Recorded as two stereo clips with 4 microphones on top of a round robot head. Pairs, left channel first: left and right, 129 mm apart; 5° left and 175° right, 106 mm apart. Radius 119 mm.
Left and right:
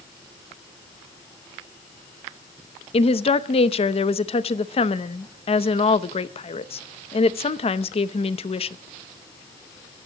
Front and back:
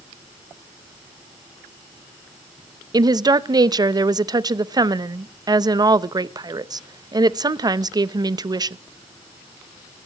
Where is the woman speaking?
135° left, 0.8 m.